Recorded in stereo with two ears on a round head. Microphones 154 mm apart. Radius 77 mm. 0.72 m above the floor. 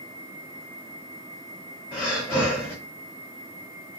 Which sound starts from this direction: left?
Breathing, at 1.9 s.